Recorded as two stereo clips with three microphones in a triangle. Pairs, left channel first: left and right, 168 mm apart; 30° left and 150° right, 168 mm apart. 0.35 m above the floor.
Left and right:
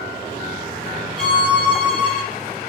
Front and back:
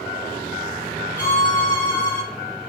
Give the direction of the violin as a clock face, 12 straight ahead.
1 o'clock.